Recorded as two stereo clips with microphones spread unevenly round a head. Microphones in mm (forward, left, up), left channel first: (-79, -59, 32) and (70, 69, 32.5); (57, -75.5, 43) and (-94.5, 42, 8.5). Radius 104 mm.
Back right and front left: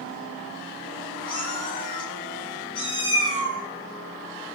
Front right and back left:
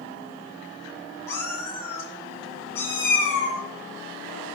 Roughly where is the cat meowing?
Right.